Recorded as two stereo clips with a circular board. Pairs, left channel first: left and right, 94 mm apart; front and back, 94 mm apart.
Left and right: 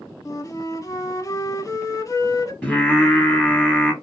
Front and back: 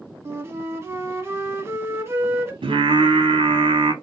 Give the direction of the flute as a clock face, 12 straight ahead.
8 o'clock.